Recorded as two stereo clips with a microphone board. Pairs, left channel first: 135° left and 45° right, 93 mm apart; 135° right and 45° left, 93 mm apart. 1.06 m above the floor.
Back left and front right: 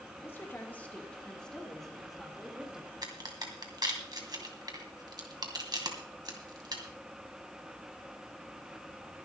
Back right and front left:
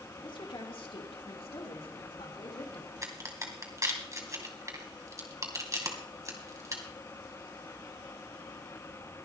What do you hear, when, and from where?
0.2 s a woman speaking: 160° right, 2.5 m; by 2.9 s 125° right, 3 m
3.0 s a crack: 5° right, 2 m